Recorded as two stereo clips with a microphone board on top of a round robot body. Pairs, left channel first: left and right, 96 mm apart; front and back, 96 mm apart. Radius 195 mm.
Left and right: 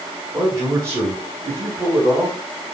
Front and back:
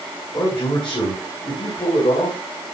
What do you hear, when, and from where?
0.3 s a man speaking: 35° right, 4.5 m